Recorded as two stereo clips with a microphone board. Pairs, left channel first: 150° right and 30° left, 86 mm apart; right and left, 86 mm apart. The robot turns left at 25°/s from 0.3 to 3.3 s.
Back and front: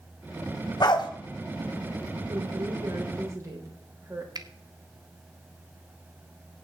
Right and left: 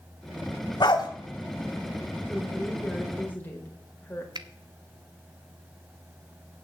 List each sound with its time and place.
0.8 s a dog barking: 120° right, 1.7 m; by 1.1 s 130° right, 1.7 m
2.3 s a woman speaking: straight ahead, 3.5 m; by 4.2 s 25° right, 3.5 m
4.3 s a finger snap: 60° left, 0.9 m